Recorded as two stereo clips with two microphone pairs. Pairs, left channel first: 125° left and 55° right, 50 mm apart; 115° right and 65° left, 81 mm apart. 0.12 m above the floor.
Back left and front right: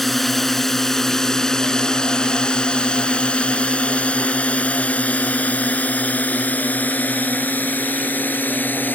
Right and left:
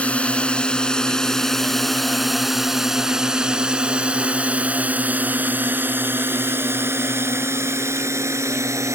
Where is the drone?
155° right; by 8.9 s 95° left.